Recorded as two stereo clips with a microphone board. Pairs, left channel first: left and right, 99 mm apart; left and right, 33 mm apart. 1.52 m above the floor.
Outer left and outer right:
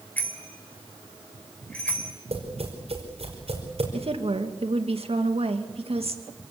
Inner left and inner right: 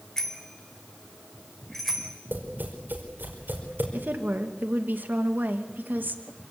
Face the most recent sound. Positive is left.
turn(degrees=-75)  # may be behind; listen again after turning